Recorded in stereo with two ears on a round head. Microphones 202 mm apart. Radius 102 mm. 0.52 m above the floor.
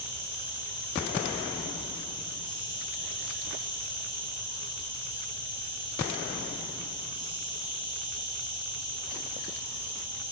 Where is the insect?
20° left (ahead or behind), 9.5 m.